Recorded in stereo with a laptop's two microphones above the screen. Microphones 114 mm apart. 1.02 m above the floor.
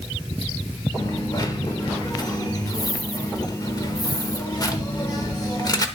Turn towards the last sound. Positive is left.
turn(degrees=35)  # may be behind; listen again after turning